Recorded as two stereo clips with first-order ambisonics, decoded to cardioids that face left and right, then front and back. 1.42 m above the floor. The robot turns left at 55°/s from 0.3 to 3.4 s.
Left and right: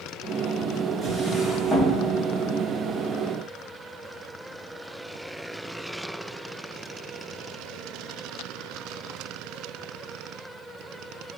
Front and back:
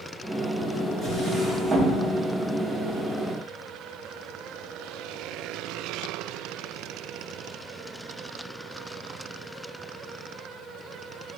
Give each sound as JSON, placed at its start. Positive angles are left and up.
{"t": 1.0, "sound": "a drawer", "azimuth_deg": -145, "distance_m": 0.6}